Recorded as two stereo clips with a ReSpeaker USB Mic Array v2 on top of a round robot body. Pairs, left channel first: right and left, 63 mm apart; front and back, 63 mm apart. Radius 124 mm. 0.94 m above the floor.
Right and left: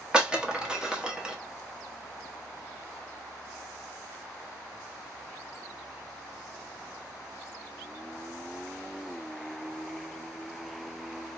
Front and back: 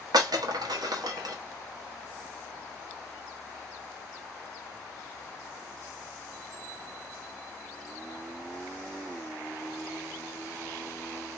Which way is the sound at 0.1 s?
170° left.